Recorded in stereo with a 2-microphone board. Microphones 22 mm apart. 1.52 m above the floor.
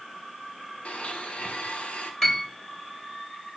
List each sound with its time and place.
0.8 s a blender: 70° left (ahead or behind), 1.6 m
2.2 s a piano: 25° left (ahead or behind), 3.5 m